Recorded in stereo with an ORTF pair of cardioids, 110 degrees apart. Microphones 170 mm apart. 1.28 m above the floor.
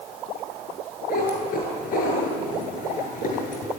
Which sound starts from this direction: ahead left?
A cat meowing, at 1.1 s.